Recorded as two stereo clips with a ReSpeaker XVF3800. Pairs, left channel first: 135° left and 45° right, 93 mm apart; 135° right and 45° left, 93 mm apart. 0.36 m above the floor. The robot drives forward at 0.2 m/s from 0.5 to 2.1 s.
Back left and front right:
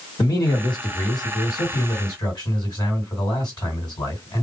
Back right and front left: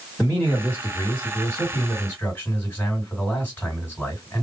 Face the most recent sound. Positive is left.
turn(degrees=160)